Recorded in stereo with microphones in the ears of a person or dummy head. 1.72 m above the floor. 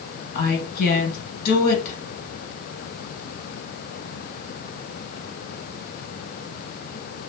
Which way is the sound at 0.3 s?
55° left (ahead or behind).